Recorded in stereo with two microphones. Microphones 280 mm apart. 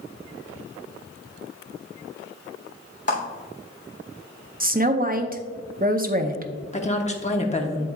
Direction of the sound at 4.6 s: 30° right (ahead or behind).